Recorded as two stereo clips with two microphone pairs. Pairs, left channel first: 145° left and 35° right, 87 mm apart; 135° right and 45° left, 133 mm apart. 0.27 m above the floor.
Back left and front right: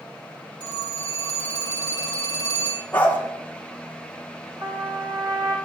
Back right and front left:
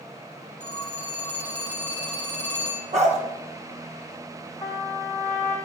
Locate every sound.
0.6 s a phone ringing: 55° right, 5 m
2.9 s a dog barking: 75° left, 1.8 m
4.6 s a trumpet: 70° right, 4 m